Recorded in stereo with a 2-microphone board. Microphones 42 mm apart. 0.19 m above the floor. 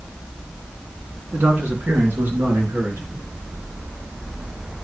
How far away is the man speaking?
About 2.5 m.